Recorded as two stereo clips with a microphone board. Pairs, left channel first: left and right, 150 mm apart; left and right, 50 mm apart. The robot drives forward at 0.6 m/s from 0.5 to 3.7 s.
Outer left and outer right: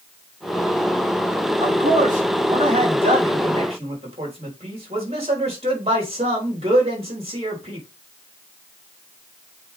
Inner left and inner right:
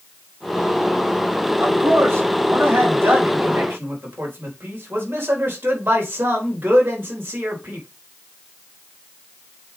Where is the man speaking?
60° right (ahead or behind), 3 m; by 7.9 s 45° right (ahead or behind), 4 m.